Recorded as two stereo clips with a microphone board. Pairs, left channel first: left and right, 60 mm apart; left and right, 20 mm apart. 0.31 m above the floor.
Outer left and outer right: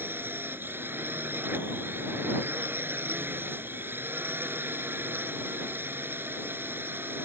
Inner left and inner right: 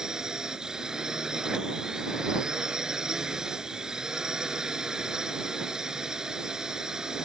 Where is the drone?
40° right (ahead or behind).